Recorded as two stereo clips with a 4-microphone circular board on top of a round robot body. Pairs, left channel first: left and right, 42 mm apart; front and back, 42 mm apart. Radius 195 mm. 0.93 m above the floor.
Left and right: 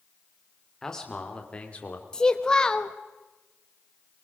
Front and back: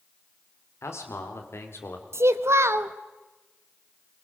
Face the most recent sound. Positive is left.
turn(degrees=165)